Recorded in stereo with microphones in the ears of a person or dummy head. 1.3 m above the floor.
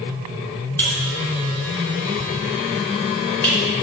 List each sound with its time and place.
0.8 s a buzzer: 10° left (ahead or behind), 3 m